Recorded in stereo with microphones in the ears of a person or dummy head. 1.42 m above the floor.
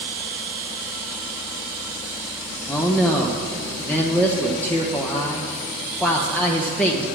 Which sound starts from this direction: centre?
A man speaking, at 2.7 s.